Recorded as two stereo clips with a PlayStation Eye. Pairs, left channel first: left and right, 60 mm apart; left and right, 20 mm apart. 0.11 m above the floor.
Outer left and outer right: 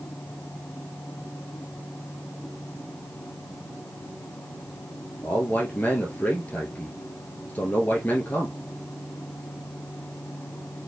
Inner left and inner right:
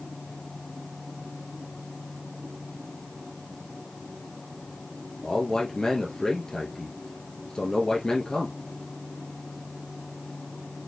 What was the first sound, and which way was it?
A man speaking, 30° left (ahead or behind).